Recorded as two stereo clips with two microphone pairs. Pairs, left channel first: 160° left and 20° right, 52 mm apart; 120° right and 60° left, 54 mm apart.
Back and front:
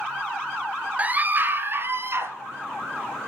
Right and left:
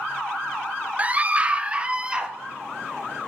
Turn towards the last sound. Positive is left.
turn(degrees=-5)